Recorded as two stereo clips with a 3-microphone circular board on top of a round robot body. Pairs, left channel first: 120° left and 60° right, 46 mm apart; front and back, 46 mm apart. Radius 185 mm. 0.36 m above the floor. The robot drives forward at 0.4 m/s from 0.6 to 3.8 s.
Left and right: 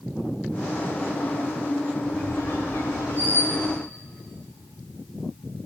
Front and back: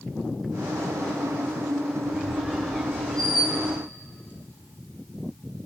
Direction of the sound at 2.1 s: 80° left.